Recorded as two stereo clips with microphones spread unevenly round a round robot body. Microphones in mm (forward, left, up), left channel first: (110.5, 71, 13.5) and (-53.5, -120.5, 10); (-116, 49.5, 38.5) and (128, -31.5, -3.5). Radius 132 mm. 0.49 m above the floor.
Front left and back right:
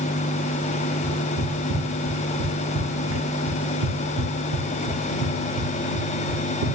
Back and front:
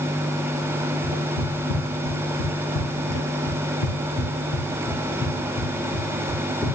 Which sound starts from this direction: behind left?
Footsteps, at 1.0 s.